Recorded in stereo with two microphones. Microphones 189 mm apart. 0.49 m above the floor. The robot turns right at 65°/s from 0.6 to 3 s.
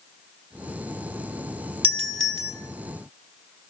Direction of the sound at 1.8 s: 145° right.